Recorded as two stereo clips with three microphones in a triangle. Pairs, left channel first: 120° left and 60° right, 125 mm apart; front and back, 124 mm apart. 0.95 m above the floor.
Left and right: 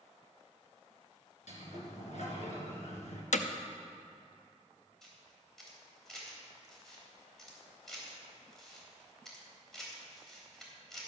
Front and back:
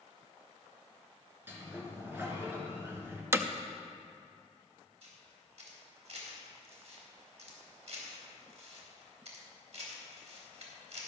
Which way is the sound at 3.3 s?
105° left.